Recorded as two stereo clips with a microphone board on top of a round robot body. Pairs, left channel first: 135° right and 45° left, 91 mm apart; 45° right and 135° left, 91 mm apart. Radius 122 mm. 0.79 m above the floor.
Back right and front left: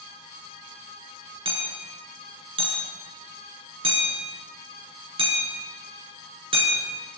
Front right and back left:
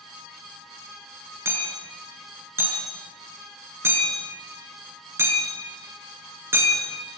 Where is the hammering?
70° left, 6 m.